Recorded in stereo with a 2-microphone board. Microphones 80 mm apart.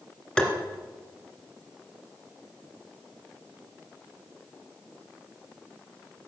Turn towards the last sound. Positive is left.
turn(degrees=10)  # may be behind; listen again after turning